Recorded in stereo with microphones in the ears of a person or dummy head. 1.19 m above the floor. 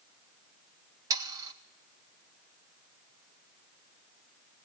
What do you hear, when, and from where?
1.1 s sawing: 15° right (ahead or behind), 0.6 m